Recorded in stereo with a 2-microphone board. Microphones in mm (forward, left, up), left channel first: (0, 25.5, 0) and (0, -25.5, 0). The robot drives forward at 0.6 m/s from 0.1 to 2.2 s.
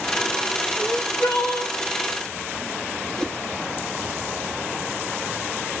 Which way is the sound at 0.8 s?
85° left.